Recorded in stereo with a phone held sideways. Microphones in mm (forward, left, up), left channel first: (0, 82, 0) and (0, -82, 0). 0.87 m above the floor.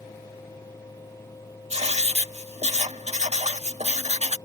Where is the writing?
40° right (ahead or behind).